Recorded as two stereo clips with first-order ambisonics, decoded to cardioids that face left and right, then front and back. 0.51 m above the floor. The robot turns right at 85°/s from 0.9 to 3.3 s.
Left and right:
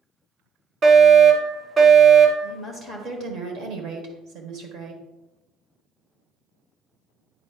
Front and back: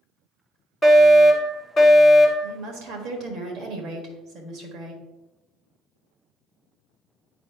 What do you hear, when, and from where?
0.8 s a fire alarm: 60° right, 1.7 m; by 2.5 s 80° left, 1.7 m
2.4 s a woman speaking: 155° left, 1.5 m; by 5.0 s 130° right, 1.5 m